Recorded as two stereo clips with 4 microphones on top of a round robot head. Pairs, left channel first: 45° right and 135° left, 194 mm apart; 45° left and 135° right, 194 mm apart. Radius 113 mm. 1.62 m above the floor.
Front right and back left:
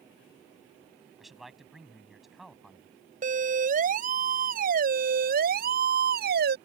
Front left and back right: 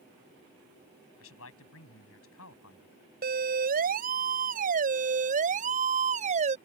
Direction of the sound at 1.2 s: 45° left.